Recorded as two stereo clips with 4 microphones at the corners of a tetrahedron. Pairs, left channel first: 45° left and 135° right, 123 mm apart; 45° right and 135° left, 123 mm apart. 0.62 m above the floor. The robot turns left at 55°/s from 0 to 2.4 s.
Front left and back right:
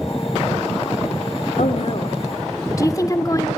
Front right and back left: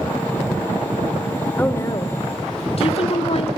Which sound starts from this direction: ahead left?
A woman speaking, at 1.6 s.